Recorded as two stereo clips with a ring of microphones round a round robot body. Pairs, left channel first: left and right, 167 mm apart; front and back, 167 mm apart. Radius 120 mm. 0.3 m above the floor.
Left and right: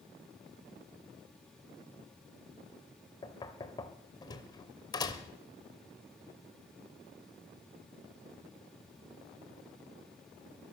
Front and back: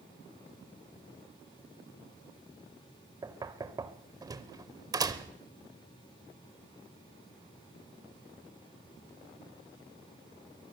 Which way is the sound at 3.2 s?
135° left.